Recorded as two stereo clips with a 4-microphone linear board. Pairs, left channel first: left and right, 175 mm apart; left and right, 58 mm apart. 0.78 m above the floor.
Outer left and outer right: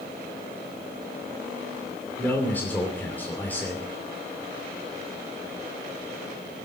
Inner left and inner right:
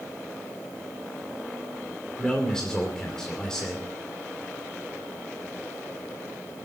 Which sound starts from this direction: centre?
A man speaking, at 2.2 s.